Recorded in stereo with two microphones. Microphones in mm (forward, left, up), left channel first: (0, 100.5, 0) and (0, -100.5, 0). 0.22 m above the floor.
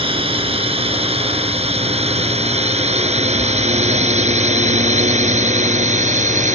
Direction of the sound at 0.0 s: 30° right (ahead or behind).